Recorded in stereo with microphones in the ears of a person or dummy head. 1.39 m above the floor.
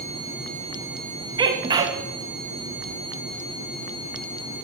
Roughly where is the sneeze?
Right.